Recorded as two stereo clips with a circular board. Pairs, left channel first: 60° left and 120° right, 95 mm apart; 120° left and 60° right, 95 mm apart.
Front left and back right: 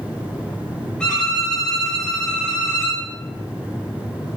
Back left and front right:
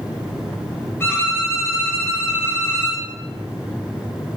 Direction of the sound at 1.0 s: 125° left.